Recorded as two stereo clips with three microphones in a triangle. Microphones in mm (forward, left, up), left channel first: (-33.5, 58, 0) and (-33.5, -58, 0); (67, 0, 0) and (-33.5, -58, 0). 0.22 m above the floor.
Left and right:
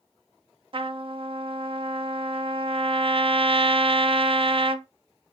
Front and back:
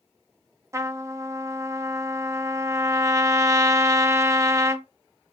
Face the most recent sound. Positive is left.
turn(degrees=-95)